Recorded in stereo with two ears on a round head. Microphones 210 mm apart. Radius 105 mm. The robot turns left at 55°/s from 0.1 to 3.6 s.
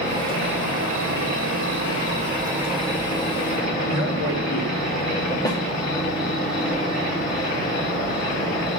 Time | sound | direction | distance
0.0 | an insect | 30° right | 2.5 m
3.9 | a man speaking | 65° left (ahead or behind) | 2.5 m
5.5 | a snare drum | 15° left (ahead or behind) | 1.3 m